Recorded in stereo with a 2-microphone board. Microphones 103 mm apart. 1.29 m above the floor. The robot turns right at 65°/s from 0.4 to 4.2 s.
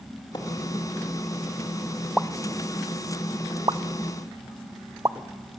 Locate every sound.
0.3 s a splash: 50° left (ahead or behind), 2.5 m; by 0.5 s 45° left (ahead or behind), 2.5 m
2.2 s a pop: centre (ahead or behind), 0.5 m; by 5.2 s 35° right (ahead or behind), 0.5 m